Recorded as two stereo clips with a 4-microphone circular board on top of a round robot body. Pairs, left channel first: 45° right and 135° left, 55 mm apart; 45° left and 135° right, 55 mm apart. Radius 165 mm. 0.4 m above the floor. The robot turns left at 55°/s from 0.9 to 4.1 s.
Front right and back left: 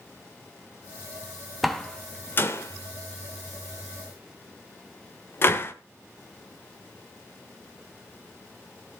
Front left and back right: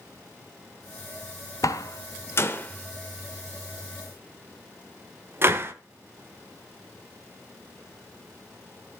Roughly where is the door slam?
Ahead left.